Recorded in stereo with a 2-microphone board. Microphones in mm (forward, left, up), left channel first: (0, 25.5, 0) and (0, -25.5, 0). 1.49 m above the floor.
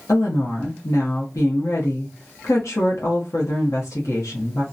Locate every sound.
0.1 s a woman speaking: 80° left, 0.7 m